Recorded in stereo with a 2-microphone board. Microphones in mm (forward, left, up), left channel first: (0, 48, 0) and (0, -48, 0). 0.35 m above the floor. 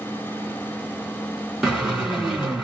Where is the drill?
5° right (ahead or behind), 2 m.